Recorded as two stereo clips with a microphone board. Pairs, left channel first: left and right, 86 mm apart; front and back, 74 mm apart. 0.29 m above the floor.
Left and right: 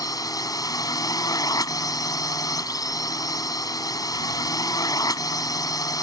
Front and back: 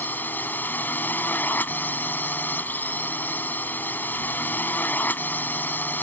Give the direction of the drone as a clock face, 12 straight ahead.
10 o'clock.